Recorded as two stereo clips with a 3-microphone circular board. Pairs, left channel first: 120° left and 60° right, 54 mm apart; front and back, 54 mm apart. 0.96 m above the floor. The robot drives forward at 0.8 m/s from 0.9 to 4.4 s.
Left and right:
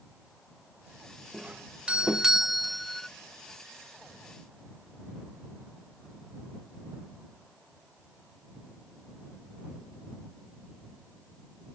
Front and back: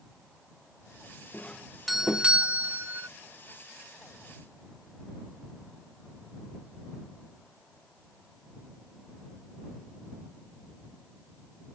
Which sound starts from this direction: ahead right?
A doorbell, at 1.3 s.